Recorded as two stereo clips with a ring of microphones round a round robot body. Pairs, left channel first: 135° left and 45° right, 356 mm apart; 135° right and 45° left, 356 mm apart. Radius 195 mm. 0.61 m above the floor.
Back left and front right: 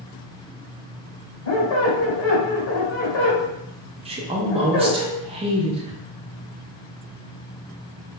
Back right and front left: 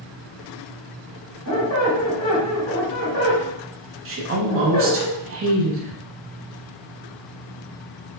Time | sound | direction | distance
1.4 | a squeak | 175° right | 1.5 m
4.0 | a woman speaking | 20° left | 0.6 m